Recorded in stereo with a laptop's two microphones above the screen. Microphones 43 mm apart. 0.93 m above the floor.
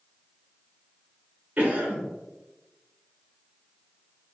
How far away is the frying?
No frying in this recording.